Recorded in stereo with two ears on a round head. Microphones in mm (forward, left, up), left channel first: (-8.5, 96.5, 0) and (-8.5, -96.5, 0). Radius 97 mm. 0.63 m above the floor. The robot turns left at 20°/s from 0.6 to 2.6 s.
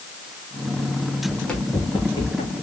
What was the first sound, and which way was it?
Running footsteps, 5° right (ahead or behind).